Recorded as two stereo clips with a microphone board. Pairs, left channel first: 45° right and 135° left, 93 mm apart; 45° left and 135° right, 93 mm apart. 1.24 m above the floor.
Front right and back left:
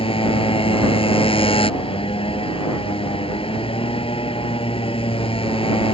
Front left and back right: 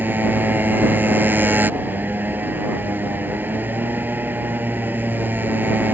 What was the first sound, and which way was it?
A motorcycle, 65° right.